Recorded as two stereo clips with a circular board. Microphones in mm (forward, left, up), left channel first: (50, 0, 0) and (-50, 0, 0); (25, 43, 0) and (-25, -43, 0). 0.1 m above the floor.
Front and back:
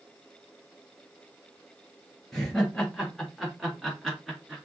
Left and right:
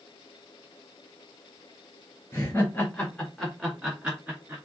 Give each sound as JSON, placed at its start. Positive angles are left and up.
{"t": 2.3, "sound": "laughter", "azimuth_deg": 85, "distance_m": 1.5}